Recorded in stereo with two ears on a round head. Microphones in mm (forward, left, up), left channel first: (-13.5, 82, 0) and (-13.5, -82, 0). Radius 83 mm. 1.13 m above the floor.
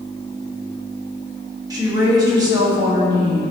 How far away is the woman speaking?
About 2 m.